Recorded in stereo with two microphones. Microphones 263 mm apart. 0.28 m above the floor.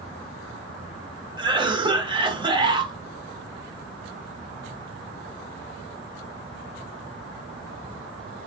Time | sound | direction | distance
1.4 | a cough | 20° right (ahead or behind) | 1.4 m